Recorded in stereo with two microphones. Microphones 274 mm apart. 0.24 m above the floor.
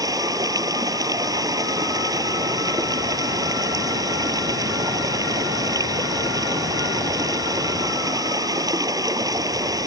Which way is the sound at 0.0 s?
15° right (ahead or behind).